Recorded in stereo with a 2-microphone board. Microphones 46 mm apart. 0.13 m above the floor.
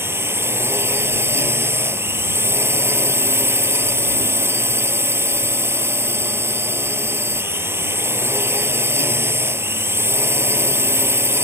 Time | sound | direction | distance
0.0 | a drone | 60° right (ahead or behind) | ?